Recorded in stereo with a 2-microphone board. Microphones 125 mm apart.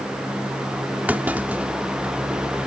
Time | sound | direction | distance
1.1 | a clunk | 15° right (ahead or behind) | ?